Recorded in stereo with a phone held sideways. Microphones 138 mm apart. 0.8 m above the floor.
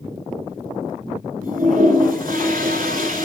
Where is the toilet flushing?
75° right (ahead or behind), 2.5 m.